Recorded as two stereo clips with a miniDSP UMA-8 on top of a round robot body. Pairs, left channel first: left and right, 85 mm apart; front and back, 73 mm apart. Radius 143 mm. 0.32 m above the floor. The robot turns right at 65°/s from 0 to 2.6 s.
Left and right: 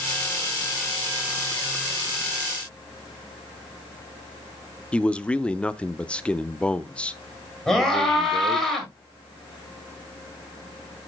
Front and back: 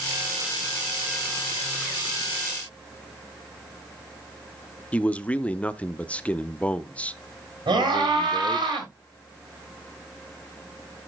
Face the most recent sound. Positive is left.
turn(degrees=175)